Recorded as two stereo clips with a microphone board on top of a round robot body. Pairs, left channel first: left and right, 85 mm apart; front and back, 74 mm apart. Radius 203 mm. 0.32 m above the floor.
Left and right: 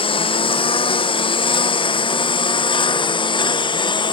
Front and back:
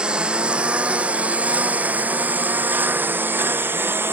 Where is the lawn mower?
105° left; by 4.1 s 120° left.